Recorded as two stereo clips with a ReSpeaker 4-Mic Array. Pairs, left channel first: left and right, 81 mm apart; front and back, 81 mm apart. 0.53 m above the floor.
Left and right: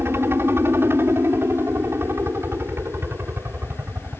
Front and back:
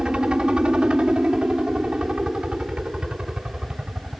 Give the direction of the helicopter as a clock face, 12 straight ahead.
4 o'clock.